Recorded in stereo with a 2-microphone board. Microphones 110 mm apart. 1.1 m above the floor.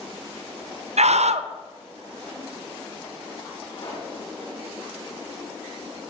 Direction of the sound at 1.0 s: 80° right.